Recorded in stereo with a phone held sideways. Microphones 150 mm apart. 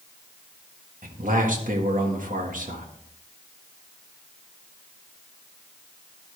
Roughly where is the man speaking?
Right.